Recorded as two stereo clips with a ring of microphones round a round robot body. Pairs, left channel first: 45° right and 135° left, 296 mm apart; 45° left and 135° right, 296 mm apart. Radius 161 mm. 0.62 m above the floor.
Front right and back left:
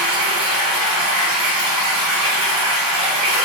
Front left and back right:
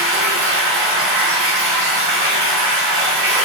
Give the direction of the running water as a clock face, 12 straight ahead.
6 o'clock.